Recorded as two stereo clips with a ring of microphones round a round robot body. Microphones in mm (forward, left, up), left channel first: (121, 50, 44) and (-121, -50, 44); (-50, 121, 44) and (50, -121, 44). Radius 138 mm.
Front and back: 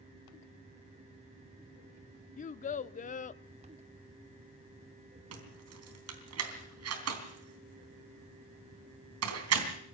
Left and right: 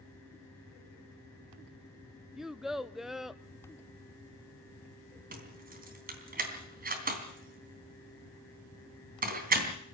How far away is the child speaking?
About 0.6 m.